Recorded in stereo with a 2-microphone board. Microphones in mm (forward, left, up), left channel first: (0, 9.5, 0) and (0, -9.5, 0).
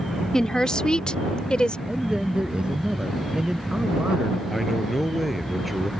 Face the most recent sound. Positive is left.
turn(degrees=0)  # may be behind; listen again after turning